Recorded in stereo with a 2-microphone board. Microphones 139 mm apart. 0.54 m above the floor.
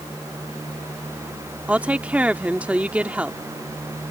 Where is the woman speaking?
10° right (ahead or behind).